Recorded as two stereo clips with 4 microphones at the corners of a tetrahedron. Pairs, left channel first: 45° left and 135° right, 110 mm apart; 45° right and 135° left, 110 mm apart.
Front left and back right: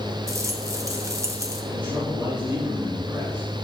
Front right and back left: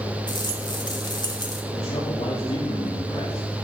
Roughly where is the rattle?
Right.